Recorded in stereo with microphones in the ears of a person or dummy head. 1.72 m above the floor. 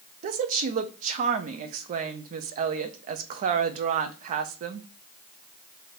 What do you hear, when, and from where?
0.2 s a woman speaking: 40° right (ahead or behind), 0.5 m